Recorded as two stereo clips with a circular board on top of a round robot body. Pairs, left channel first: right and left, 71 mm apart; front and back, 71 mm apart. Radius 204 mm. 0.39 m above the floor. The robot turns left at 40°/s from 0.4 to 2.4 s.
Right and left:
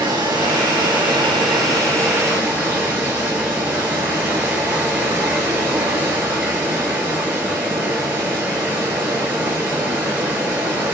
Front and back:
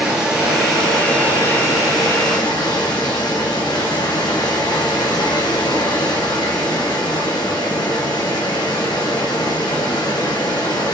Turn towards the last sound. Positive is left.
turn(degrees=25)